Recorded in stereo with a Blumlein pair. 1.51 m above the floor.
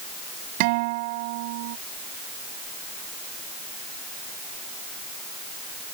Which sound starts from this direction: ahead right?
A guitar, at 0.6 s.